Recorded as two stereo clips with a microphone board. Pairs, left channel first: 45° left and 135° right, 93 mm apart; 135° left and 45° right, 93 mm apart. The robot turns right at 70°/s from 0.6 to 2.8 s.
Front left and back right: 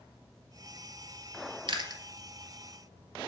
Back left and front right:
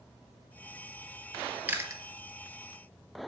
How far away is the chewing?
About 1.2 m.